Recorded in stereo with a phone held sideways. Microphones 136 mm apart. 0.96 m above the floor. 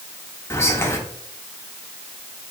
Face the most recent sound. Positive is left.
turn(degrees=20)  # may be behind; listen again after turning